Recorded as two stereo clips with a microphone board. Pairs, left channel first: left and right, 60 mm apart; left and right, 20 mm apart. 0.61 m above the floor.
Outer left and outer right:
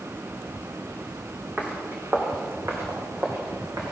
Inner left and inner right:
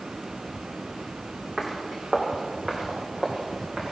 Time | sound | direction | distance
1.6 | footsteps | 20° right (ahead or behind) | 2 m